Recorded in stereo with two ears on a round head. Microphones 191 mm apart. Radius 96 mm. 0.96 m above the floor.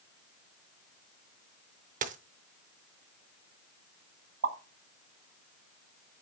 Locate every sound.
2.0 s a dropped coin: 40° right (ahead or behind), 0.7 m
4.4 s a pop: 55° right (ahead or behind), 1.0 m